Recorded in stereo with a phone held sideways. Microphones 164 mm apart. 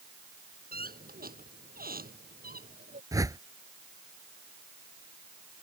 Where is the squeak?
65° right (ahead or behind).